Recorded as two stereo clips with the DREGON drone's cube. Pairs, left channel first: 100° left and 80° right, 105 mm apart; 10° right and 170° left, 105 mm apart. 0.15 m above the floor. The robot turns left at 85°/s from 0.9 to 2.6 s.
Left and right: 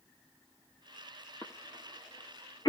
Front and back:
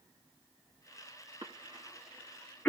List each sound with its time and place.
1.4 s a cough: 155° left, 2.5 m; by 2.7 s 55° left, 2.5 m